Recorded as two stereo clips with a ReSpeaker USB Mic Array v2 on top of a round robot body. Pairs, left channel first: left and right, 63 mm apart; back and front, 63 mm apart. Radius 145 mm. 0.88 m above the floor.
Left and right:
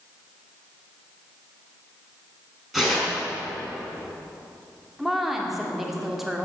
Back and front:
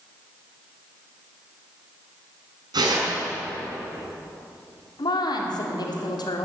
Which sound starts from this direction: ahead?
Tearing paper, at 2.7 s.